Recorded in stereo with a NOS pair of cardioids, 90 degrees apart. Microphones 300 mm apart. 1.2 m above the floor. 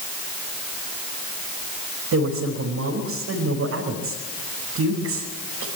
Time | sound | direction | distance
2.1 | a woman speaking | 60° right | 5.5 m